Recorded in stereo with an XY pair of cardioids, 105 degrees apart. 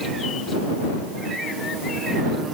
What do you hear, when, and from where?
Only background noise.